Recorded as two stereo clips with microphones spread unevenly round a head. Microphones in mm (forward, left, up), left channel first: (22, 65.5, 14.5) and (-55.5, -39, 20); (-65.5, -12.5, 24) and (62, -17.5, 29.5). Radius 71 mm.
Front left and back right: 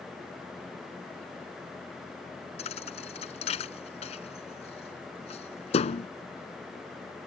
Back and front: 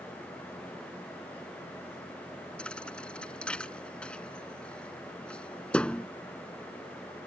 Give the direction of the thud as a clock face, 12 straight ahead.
9 o'clock.